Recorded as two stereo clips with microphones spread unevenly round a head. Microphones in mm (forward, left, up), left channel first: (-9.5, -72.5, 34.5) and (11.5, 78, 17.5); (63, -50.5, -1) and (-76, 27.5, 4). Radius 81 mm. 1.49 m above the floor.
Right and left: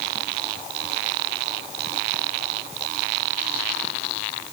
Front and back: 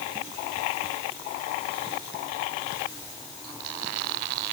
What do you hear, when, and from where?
Only background noise.